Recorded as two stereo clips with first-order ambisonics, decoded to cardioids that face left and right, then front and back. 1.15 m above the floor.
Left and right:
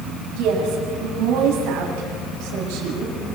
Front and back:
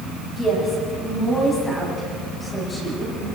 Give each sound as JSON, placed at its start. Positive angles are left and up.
{"t": 0.4, "sound": "a woman speaking", "azimuth_deg": -80, "distance_m": 7.0}